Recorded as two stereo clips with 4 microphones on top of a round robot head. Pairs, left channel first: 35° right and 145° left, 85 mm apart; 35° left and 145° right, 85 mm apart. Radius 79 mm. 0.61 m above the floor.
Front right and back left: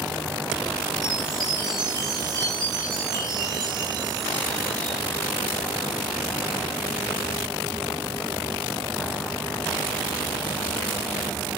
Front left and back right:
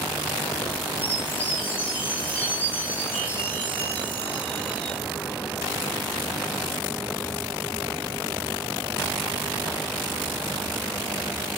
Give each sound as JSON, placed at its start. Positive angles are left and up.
{"t": 1.0, "sound": "a chime", "azimuth_deg": 105, "distance_m": 8.5}